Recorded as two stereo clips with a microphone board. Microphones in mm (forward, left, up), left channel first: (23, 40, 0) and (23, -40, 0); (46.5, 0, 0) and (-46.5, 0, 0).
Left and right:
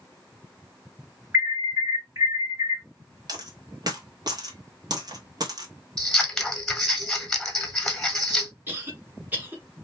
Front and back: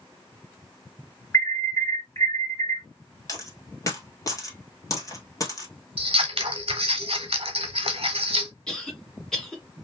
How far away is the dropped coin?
About 1.1 m.